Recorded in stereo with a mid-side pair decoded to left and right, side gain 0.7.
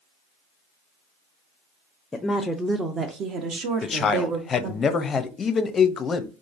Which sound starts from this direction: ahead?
A woman speaking, at 2.1 s.